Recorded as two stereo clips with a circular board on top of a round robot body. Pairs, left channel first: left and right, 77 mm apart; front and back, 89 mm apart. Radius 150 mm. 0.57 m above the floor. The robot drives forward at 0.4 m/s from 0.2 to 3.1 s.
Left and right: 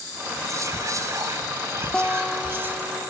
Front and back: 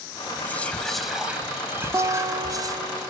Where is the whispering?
60° right, 0.7 m; by 2.8 s 150° right, 1.0 m.